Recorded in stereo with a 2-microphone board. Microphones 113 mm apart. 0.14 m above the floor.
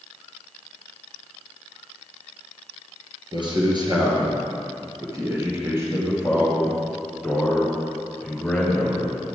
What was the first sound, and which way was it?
A man speaking, 45° right (ahead or behind).